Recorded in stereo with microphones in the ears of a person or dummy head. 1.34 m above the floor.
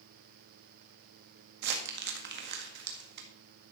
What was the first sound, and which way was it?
Crumpling, 60° right (ahead or behind).